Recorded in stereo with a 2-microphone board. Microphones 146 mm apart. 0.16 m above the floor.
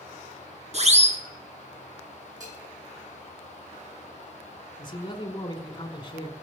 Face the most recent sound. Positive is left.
turn(degrees=30)  # may be behind; listen again after turning